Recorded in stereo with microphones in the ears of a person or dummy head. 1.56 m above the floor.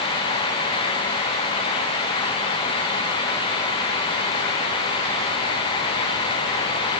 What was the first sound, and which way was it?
Only background noise.